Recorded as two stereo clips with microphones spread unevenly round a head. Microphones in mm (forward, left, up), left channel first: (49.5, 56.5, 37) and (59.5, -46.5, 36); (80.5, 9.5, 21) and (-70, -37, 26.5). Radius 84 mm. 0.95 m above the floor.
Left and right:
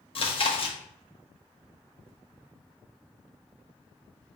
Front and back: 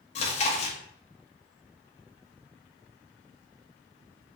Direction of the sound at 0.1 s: 65° left.